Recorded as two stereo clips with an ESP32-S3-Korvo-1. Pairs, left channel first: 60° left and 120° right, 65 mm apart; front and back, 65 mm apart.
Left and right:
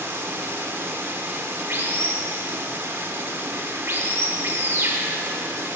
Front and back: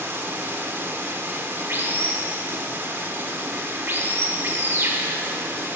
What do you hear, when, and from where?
0.0 s running water: 150° right, 1.0 m